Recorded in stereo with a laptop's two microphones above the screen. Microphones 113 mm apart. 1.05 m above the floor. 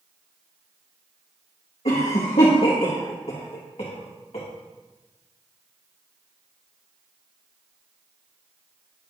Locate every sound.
1.9 s a cough: 70° left (ahead or behind), 1.3 m